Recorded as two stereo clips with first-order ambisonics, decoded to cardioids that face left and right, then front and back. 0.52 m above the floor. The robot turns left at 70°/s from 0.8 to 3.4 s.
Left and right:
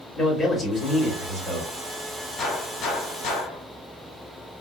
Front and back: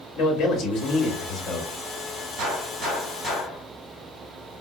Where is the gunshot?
155° left, 1.7 m; by 3.6 s 85° left, 1.7 m.